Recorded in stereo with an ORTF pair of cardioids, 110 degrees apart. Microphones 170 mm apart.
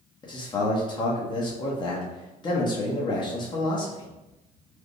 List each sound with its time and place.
0.2 s a man speaking: 25° left, 0.9 m